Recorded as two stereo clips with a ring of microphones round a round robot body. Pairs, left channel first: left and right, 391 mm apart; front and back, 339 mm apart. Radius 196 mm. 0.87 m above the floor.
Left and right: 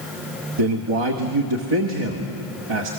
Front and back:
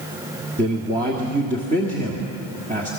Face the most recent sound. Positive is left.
turn(degrees=-110)